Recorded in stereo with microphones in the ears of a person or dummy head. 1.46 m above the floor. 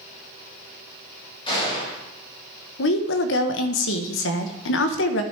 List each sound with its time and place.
1.5 s a gunshot: 25° left (ahead or behind), 3.5 m
2.8 s a woman speaking: 75° left (ahead or behind), 1.0 m